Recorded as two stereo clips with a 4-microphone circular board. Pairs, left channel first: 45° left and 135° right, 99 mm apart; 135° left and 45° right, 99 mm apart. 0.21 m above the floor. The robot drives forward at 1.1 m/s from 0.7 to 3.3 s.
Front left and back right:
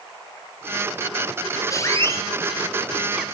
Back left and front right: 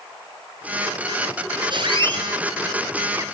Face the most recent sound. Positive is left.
turn(degrees=-65)